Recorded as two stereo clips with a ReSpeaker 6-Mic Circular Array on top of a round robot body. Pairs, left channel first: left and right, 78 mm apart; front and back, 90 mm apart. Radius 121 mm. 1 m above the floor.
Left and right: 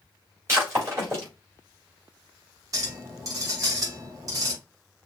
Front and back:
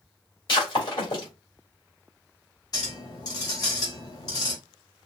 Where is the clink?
45° right, 2.5 m.